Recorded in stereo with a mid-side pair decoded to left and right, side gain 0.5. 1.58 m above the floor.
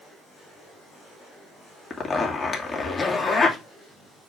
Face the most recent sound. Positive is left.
turn(degrees=25)